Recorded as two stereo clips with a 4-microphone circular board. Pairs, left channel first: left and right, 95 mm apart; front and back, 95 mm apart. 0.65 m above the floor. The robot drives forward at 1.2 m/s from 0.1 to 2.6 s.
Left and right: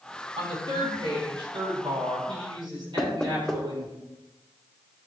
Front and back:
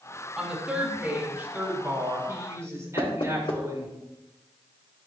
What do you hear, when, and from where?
0.4 s a woman speaking: 95° right, 5.5 m; by 3.9 s 120° right, 6.5 m
3.0 s knocking: 5° left, 2 m